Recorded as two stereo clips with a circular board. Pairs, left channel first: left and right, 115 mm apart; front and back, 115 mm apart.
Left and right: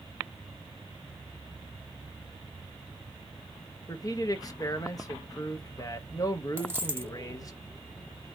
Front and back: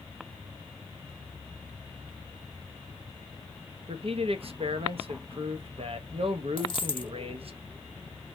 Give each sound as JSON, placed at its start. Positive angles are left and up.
{"t": 3.9, "sound": "a man speaking", "azimuth_deg": 150, "distance_m": 0.7}
{"t": 6.6, "sound": "a dropped coin", "azimuth_deg": -25, "distance_m": 0.7}